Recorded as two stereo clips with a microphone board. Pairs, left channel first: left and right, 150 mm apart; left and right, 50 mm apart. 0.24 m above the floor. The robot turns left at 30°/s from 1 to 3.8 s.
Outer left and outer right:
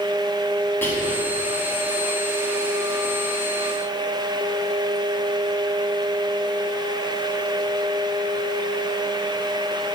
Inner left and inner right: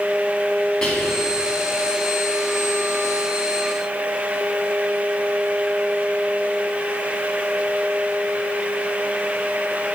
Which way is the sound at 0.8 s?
15° left (ahead or behind).